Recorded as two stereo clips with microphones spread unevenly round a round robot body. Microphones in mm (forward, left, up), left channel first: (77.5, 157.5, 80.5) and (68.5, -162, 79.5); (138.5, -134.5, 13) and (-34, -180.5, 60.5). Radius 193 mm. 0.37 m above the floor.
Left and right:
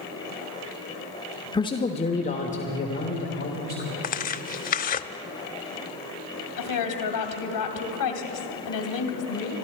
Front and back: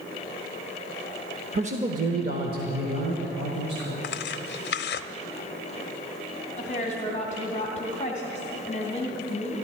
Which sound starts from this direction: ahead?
Tearing paper, at 4.0 s.